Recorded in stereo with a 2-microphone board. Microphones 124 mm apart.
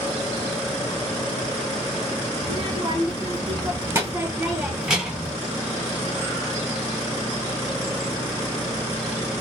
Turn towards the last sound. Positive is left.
turn(degrees=0)  # may be behind; listen again after turning